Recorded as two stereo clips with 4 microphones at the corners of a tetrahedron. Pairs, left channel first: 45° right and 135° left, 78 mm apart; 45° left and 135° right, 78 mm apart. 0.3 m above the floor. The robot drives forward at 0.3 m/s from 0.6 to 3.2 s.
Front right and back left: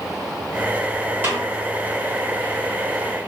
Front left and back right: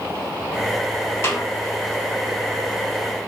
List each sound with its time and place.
1.2 s a snare drum: 85° left, 1.4 m; by 1.4 s 90° left, 1.4 m